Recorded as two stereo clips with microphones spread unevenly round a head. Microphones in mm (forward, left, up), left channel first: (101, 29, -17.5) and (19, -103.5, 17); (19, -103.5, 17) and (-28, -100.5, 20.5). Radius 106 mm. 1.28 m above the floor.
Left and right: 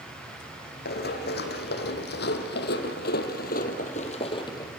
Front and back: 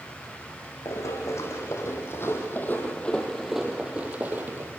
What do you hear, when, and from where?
0.8 s running footsteps: 45° left, 3.5 m; by 4.7 s 135° left, 1.9 m